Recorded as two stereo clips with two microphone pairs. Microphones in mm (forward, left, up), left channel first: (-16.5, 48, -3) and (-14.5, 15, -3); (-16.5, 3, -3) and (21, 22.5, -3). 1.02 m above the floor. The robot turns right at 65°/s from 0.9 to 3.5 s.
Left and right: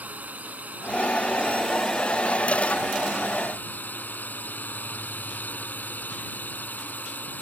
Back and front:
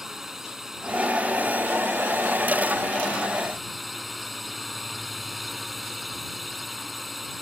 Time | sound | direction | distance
0.0 | a drone | 50° right | ?